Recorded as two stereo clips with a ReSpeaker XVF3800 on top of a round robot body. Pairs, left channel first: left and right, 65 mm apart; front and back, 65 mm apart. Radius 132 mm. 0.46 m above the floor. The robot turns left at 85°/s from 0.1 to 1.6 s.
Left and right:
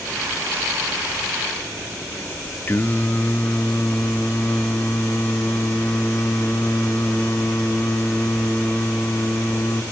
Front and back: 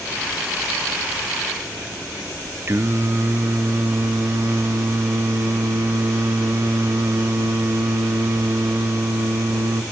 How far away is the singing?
About 0.8 m.